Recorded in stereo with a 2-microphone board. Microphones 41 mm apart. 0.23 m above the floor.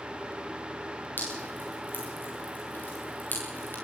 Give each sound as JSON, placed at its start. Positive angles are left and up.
{"t": 1.2, "sound": "dripping", "side_deg": 50, "distance_m": 6.5}